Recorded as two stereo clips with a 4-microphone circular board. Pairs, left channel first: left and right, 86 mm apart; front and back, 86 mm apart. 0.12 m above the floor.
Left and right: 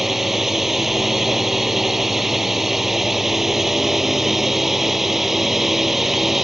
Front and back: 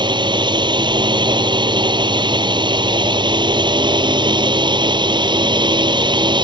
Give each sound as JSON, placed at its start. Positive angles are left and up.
{"t": 0.0, "sound": "a drone", "azimuth_deg": -175}